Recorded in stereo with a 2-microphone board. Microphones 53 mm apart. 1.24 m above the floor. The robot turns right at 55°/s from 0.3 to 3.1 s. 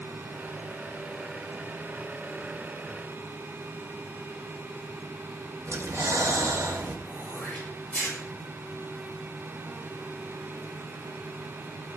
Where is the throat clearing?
30° left (ahead or behind), 7 m.